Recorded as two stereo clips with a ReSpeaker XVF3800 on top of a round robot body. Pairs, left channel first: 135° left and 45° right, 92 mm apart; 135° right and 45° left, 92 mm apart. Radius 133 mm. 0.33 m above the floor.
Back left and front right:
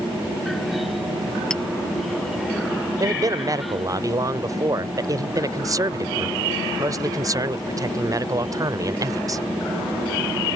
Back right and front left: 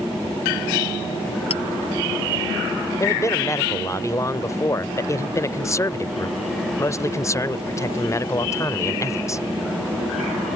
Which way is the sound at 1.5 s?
145° right.